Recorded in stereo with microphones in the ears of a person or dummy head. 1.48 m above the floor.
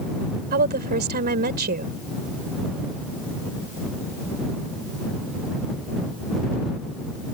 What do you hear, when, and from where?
0.5 s a woman speaking: 55° right (ahead or behind)